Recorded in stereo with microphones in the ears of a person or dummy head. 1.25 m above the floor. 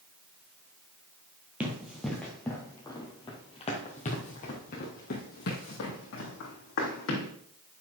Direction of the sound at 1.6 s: 5° right (ahead or behind).